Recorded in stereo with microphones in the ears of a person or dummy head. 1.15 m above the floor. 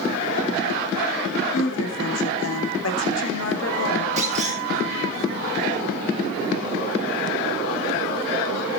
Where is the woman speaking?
85° left, 3 m.